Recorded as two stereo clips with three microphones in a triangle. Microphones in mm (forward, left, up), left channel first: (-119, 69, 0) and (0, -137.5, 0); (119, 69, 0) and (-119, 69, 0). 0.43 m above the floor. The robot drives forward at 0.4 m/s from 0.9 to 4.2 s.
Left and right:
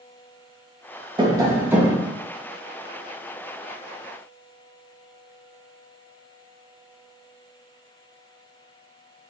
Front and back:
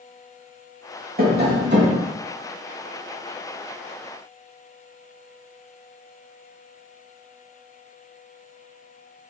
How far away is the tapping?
About 0.7 m.